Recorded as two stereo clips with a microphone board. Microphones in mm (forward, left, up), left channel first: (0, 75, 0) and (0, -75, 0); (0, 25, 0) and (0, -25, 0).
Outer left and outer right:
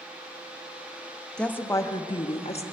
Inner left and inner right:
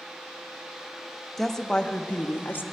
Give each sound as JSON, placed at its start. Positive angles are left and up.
{"t": 1.4, "sound": "a woman speaking", "side_deg": 5, "distance_m": 0.8}